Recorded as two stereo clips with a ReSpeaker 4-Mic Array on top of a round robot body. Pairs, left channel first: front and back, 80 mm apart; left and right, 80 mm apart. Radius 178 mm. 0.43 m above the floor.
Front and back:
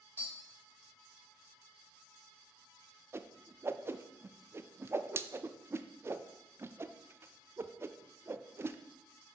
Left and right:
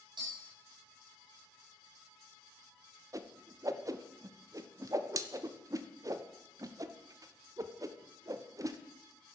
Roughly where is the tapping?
Right.